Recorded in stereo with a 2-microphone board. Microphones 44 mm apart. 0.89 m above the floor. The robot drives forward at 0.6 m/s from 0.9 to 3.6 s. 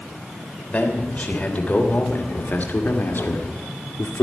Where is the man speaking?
30° left (ahead or behind), 3 m; by 4.2 s 60° left (ahead or behind), 1.9 m.